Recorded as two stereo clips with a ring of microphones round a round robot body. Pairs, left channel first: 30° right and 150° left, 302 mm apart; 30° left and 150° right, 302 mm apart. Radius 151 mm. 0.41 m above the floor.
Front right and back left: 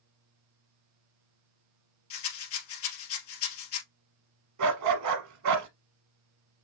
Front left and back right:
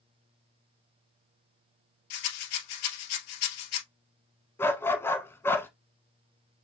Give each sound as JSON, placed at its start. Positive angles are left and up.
{"t": 2.1, "sound": "a rattle", "azimuth_deg": 15, "distance_m": 2.0}
{"t": 4.6, "sound": "a dog barking", "azimuth_deg": 115, "distance_m": 1.0}